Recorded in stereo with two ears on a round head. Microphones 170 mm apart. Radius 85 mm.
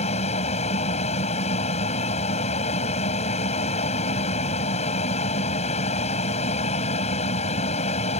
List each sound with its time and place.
0.0 s an aircraft: 35° left (ahead or behind)